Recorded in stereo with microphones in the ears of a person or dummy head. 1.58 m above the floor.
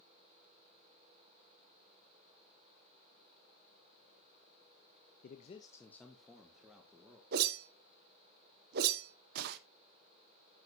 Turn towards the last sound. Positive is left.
turn(degrees=-60)  # may be behind; listen again after turning